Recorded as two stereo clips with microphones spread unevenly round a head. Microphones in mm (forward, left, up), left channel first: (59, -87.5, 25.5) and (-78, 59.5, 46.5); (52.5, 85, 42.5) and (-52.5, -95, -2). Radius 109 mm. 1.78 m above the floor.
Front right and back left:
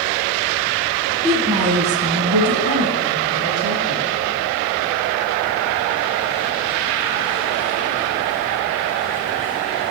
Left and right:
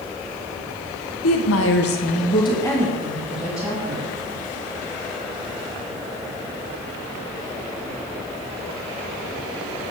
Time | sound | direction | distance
1.2 | a woman speaking | 55° left | 1.4 m